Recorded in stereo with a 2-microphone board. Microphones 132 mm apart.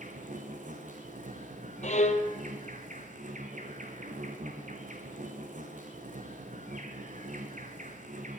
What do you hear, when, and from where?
0.0 s an insect: 75° right (ahead or behind), 2 m
1.8 s a violin: 65° left (ahead or behind), 1.3 m